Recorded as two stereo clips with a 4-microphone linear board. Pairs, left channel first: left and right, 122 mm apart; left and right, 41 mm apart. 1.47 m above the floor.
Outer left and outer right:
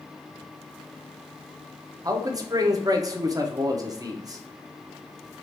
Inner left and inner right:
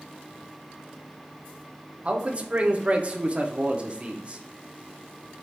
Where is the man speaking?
30° right (ahead or behind), 0.8 m.